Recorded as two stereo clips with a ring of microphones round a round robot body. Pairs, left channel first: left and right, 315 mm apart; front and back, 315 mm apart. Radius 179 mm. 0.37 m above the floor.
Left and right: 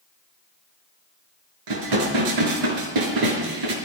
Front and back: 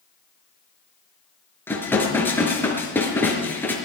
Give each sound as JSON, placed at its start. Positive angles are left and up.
{"t": 1.7, "sound": "dishes clattering", "azimuth_deg": -85, "distance_m": 4.5}